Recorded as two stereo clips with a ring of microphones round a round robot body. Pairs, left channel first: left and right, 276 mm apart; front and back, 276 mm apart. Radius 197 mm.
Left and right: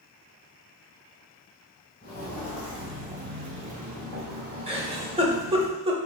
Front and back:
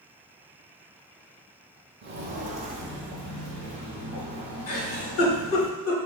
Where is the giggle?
20° right, 0.9 m.